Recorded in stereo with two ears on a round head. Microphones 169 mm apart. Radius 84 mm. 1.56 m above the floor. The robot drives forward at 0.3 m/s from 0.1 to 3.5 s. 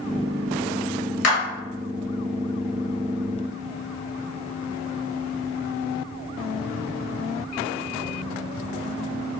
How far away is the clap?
About 1.1 m.